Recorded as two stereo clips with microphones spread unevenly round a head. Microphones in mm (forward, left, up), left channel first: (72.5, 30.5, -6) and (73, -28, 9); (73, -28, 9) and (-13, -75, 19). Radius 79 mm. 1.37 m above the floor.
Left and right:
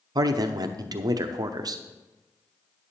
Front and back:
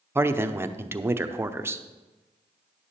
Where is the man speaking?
85° right, 0.8 m.